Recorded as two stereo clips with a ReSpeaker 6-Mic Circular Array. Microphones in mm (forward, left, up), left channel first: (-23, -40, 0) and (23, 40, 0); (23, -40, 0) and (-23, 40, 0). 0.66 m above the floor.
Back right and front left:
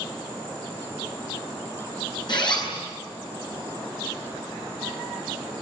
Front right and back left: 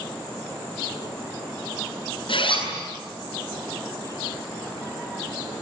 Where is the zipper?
85° right, 9 m.